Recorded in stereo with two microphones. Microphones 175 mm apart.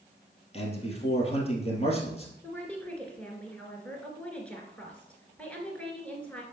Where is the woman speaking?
5° left (ahead or behind), 2 m.